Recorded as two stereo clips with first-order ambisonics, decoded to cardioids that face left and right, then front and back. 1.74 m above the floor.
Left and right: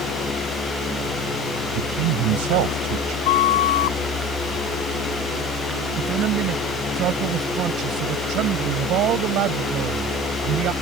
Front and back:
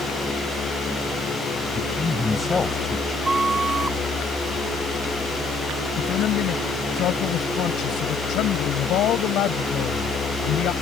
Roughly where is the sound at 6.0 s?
Ahead right.